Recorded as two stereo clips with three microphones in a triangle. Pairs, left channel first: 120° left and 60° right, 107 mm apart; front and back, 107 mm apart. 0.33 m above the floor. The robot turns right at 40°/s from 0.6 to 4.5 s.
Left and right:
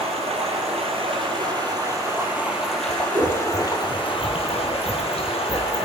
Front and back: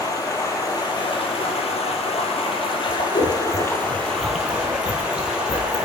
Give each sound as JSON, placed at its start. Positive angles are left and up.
{"t": 0.0, "sound": "running water", "azimuth_deg": -55, "distance_m": 2.0}
{"t": 2.9, "sound": "scissors", "azimuth_deg": -20, "distance_m": 0.9}